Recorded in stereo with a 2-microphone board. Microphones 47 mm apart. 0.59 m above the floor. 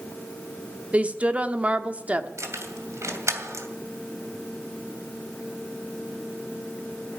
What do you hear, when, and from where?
0.9 s a woman speaking: 25° right (ahead or behind), 1.2 m
2.4 s keys jangling: 80° right, 2.5 m